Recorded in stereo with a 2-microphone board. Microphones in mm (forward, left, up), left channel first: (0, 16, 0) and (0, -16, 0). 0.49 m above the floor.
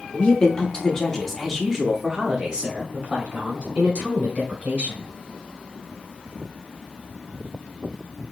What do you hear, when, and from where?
0.1 s a woman speaking: 30° left (ahead or behind), 1.2 m; by 5.1 s 45° right (ahead or behind), 2.5 m